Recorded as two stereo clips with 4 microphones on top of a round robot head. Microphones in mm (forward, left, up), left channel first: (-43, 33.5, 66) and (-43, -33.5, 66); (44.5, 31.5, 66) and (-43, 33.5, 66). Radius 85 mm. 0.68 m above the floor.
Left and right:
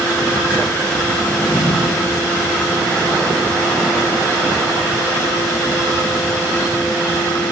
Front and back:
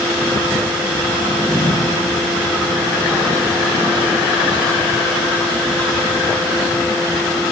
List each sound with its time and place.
1.2 s a drawer: 30° left, 1.4 m